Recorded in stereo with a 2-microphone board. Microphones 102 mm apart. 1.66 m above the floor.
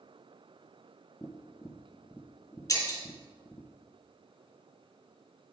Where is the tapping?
25° left (ahead or behind), 0.8 m.